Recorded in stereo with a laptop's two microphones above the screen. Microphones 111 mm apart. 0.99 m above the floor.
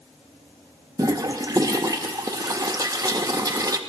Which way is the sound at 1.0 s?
35° right (ahead or behind).